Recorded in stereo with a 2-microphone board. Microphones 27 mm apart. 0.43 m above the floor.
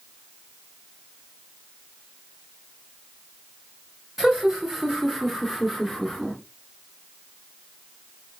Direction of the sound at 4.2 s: 15° right (ahead or behind).